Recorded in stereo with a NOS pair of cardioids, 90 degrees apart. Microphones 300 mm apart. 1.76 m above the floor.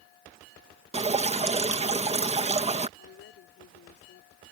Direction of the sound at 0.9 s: 20° right.